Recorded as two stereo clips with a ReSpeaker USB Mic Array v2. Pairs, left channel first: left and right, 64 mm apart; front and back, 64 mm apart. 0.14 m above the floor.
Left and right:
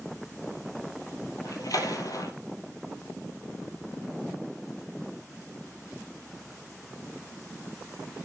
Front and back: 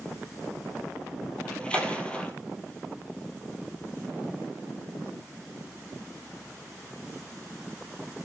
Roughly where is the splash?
Left.